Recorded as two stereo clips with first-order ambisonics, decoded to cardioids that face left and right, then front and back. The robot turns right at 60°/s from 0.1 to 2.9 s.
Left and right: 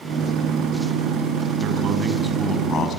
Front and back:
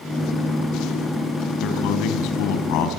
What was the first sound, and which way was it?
A man speaking, 45° right.